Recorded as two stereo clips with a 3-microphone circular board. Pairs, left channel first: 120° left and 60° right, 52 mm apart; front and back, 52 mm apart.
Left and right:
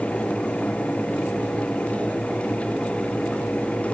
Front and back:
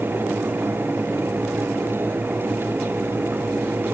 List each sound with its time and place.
Only background noise.